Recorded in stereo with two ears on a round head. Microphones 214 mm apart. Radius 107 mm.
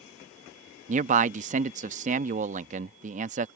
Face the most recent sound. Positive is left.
turn(degrees=-30)  # may be behind; listen again after turning